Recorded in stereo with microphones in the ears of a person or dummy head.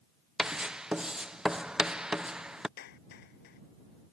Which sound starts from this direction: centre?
Writing, at 0.4 s.